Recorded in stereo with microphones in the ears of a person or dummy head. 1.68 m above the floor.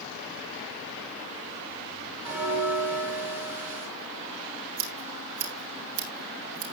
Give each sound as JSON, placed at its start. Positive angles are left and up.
{"t": 2.2, "sound": "a bell", "side_deg": -10, "distance_m": 3.0}
{"t": 4.8, "sound": "scissors", "side_deg": -45, "distance_m": 3.5}